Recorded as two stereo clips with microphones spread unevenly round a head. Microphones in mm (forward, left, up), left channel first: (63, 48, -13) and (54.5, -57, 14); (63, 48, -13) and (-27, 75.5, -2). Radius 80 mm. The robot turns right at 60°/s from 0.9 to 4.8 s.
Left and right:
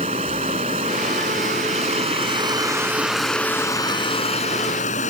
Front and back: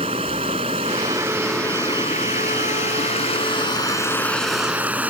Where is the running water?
145° right; by 5.1 s 90° left.